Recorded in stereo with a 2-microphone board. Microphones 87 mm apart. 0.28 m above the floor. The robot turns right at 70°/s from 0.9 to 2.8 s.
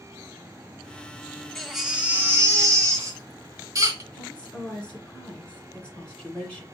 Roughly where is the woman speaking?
Centre.